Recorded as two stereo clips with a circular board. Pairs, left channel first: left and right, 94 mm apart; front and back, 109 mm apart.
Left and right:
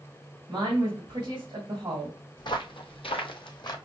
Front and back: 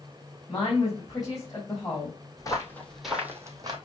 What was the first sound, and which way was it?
A woman speaking, 50° right.